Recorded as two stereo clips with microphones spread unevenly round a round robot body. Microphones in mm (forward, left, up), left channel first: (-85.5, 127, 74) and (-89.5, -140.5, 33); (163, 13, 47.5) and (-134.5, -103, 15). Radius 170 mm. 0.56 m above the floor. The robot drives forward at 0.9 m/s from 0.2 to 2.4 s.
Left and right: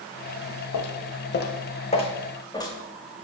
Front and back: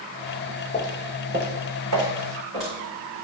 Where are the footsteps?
90° left, 1.2 m; by 3.2 s 170° left, 3 m.